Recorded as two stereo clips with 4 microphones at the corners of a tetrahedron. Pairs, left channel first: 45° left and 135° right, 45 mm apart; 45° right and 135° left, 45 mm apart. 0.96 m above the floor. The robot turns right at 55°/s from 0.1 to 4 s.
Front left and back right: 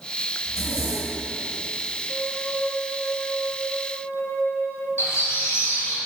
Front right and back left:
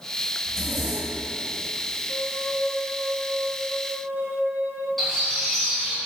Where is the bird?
40° left, 3 m.